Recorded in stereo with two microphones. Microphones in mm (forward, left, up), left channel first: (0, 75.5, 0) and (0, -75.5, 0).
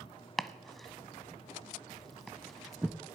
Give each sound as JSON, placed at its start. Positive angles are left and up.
{"t": 0.4, "sound": "chopping", "side_deg": 0, "distance_m": 0.6}